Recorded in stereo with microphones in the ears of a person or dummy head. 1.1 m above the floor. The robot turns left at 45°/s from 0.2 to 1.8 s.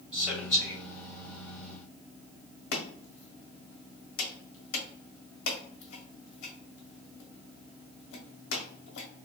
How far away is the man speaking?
About 1.7 m.